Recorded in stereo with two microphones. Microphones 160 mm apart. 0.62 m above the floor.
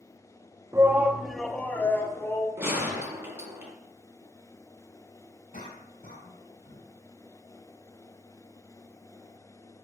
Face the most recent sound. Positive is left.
turn(degrees=60)  # may be behind; listen again after turning